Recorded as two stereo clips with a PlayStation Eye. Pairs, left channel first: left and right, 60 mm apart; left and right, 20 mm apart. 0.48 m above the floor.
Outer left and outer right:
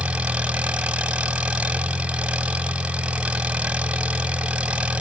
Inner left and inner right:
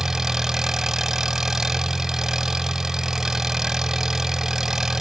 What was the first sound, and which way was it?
An engine running, 20° right (ahead or behind).